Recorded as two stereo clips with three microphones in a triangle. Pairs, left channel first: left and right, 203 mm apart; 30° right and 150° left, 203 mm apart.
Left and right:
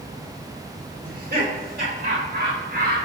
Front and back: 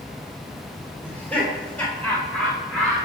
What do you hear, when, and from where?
1.0 s laughter: 115° right, 3 m